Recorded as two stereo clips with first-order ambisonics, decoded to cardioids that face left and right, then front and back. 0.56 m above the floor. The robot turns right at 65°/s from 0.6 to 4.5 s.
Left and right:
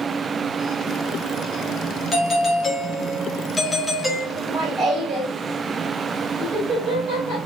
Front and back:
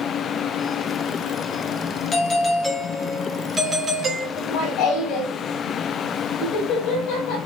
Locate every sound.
2.1 s a doorbell: 40° left, 1.0 m; by 4.3 s straight behind, 1.0 m
4.4 s laughter: 35° right, 3 m; by 7.4 s 25° right, 3 m